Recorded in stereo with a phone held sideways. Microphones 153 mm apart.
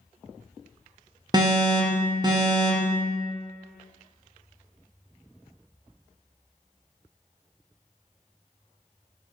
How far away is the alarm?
About 0.6 m.